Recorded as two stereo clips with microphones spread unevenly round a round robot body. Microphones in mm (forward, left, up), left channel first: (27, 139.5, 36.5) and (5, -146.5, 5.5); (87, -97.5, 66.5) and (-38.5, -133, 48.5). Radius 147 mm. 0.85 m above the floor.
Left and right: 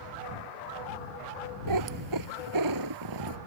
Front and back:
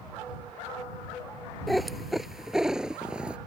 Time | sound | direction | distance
1.7 | a cat meowing | 75° right | ?